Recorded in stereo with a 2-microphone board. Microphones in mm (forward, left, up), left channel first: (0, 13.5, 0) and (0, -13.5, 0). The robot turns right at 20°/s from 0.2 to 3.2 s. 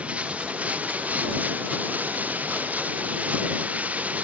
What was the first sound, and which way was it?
Running water, 125° right.